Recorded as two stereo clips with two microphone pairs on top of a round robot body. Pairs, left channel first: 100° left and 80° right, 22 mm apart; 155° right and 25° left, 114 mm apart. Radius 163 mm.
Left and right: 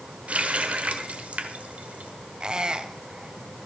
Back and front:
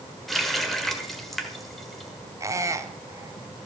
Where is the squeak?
35° right, 1.1 m.